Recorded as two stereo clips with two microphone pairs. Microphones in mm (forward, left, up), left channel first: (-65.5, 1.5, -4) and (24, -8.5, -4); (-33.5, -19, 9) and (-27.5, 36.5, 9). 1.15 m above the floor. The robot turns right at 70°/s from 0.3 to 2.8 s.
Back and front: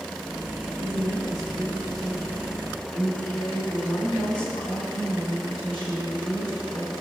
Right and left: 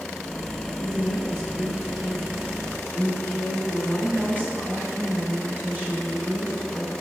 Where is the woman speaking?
Straight ahead, 4 m; by 6.9 s 140° left, 4 m.